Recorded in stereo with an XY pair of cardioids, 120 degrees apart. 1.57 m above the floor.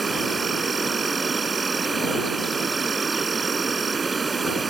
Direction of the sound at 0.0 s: 25° right.